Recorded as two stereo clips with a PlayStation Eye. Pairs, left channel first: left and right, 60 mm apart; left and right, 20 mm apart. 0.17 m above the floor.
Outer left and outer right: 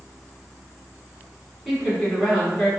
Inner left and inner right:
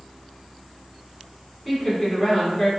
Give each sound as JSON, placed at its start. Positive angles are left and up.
{"t": 1.6, "sound": "a woman speaking", "side_deg": 0, "distance_m": 1.5}